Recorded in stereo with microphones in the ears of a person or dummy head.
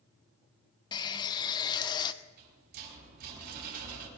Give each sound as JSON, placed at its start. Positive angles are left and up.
{"t": 0.9, "sound": "a running tap", "side_deg": 25, "distance_m": 0.7}
{"t": 2.2, "sound": "a rattle", "side_deg": -60, "distance_m": 4.5}